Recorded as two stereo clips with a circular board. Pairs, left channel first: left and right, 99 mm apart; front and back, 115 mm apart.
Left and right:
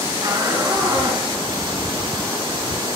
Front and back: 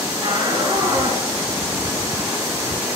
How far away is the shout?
About 7.5 m.